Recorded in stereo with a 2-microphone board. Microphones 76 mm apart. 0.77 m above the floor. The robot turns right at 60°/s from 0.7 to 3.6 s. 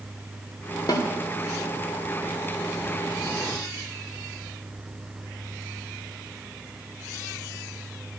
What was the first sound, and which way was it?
A snare drum, 60° left (ahead or behind).